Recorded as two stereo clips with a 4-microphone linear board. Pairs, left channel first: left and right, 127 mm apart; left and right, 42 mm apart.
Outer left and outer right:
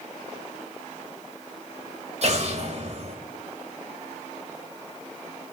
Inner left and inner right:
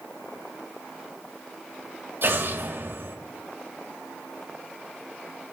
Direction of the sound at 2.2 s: 55° right (ahead or behind).